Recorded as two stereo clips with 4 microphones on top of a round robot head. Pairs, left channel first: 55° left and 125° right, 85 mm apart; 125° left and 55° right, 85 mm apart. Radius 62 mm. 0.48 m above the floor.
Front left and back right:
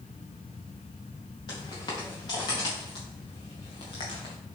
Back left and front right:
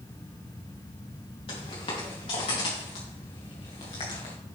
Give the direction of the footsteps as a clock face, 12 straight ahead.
9 o'clock.